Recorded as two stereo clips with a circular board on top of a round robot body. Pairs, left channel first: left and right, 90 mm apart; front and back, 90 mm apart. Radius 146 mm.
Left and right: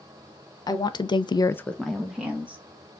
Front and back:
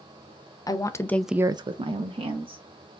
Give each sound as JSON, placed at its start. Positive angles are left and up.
{"t": 0.7, "sound": "a woman speaking", "azimuth_deg": 45, "distance_m": 1.1}